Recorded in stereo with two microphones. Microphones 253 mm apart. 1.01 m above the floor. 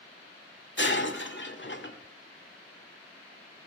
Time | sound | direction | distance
0.8 | breaking glass | 45° left (ahead or behind) | 1.8 m